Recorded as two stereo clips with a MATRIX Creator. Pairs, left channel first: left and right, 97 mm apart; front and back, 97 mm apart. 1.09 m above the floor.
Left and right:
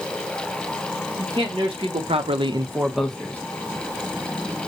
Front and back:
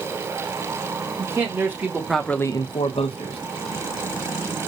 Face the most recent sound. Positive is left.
turn(degrees=15)